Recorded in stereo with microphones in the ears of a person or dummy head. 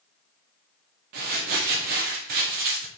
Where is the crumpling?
40° right (ahead or behind), 0.7 m.